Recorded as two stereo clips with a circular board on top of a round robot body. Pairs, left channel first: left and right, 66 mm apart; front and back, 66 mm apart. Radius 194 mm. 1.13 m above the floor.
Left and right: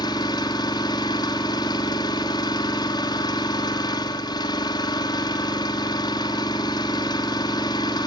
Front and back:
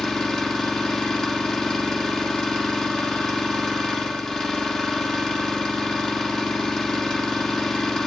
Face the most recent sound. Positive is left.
turn(degrees=80)